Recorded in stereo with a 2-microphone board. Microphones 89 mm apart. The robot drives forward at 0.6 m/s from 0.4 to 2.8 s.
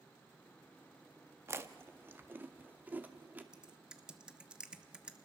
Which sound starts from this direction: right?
Chewing, at 1.5 s.